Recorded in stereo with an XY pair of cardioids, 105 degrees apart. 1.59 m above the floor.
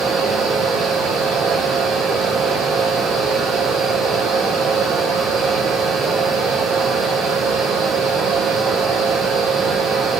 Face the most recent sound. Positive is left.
turn(degrees=-65)